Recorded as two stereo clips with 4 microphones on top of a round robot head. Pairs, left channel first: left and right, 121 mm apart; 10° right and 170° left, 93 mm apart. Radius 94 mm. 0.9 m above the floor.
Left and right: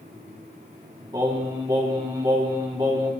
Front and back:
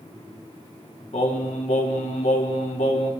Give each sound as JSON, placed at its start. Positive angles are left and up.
{"t": 1.1, "sound": "singing", "azimuth_deg": -25, "distance_m": 2.0}